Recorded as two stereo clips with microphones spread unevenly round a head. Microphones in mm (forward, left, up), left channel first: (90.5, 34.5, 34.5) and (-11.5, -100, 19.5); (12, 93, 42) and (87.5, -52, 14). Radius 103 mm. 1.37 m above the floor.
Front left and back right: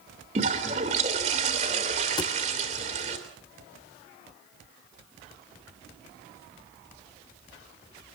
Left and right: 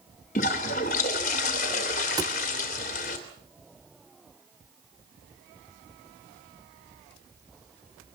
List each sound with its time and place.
0.3 s a toilet flushing: 170° left, 2.5 m
2.2 s a thud: 5° left, 1.3 m